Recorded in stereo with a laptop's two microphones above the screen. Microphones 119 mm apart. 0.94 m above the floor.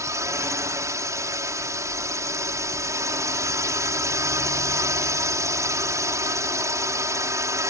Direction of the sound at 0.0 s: 25° right (ahead or behind).